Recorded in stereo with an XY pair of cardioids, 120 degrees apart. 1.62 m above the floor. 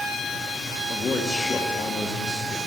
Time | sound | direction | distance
0.9 | a man speaking | 25° left | 1.7 m